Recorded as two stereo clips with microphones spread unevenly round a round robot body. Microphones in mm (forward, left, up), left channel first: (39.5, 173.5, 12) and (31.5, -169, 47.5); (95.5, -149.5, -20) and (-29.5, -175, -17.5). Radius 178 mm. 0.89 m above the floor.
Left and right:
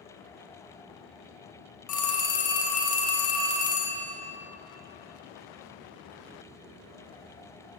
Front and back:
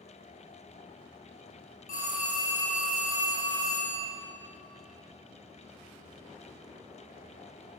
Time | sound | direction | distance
1.9 | a phone ringing | 45° left | 1.1 m